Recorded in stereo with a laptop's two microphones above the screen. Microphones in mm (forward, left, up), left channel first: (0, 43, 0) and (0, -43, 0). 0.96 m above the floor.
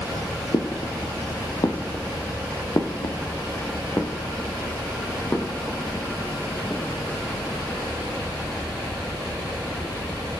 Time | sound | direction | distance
0.5 | footsteps | 55° left (ahead or behind) | 1.8 m